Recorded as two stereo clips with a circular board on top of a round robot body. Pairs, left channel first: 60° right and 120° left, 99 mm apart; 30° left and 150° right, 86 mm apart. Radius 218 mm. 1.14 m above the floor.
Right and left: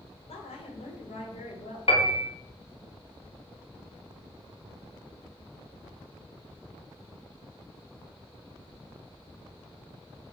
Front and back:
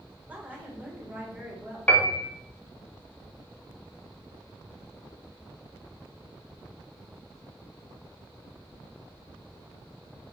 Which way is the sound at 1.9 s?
45° right.